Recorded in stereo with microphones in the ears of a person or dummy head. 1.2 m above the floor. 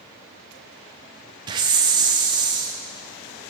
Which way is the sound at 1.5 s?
25° right (ahead or behind).